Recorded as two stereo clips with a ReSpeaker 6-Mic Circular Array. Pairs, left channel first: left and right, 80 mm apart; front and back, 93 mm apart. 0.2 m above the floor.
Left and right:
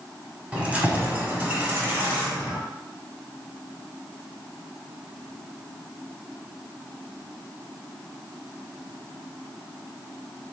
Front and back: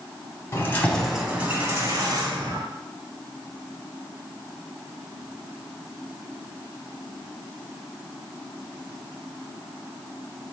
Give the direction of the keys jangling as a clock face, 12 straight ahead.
1 o'clock.